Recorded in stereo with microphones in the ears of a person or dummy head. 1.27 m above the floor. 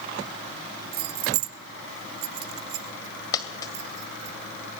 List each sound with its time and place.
0.9 s keys jangling: 55° right (ahead or behind), 0.6 m; by 4.3 s 35° right (ahead or behind), 1.8 m
3.3 s a dropped coin: 25° left (ahead or behind), 2.0 m